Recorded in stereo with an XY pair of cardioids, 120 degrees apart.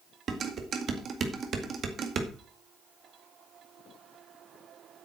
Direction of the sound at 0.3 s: 45° right.